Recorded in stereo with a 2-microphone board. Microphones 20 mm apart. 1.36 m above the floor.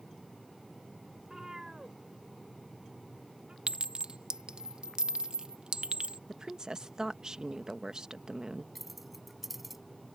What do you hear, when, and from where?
1.2 s a cat meowing: 25° right (ahead or behind); by 3.6 s 50° right (ahead or behind)
3.7 s a clink: 50° right (ahead or behind)
6.3 s a woman speaking: 35° right (ahead or behind)
8.8 s keys jangling: 10° right (ahead or behind)